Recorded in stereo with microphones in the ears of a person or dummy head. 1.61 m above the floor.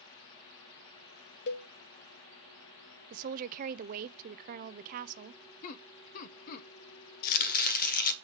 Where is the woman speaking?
50° right (ahead or behind), 0.5 m.